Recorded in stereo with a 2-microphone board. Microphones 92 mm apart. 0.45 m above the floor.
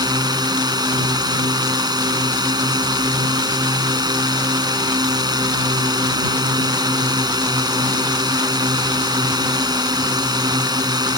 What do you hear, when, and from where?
0.0 s a drone: 50° right (ahead or behind)